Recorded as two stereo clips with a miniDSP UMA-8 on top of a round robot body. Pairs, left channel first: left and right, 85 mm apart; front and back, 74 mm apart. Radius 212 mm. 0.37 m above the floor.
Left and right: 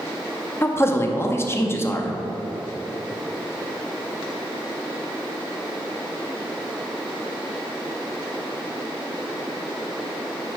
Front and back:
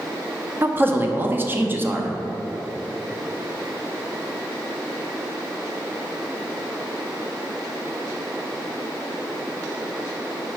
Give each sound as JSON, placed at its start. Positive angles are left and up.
{"t": 0.6, "sound": "a man speaking", "azimuth_deg": 135, "distance_m": 0.9}